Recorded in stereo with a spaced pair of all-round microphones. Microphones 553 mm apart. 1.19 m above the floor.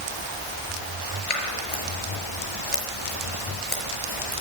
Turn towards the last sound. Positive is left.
turn(degrees=75)  # may be behind; listen again after turning